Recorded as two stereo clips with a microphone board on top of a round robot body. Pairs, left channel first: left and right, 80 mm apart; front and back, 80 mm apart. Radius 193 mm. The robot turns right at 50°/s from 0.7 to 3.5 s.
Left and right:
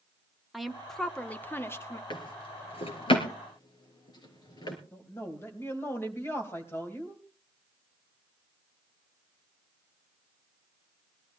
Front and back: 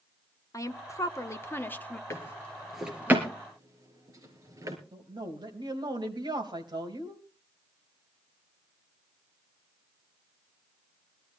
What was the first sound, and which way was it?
A woman speaking, straight ahead.